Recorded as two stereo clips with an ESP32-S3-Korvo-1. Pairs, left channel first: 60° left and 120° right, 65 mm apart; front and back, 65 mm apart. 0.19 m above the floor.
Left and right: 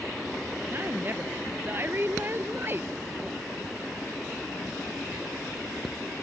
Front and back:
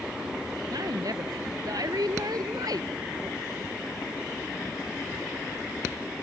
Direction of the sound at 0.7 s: 175° right.